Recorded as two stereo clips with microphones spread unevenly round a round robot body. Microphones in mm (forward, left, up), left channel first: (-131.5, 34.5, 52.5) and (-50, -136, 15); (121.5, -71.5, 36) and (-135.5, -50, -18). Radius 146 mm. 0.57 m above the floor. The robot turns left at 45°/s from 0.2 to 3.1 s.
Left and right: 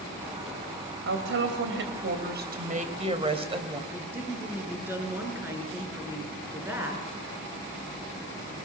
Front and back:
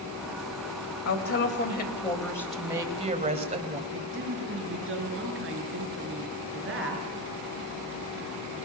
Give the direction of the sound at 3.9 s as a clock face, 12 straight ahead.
5 o'clock.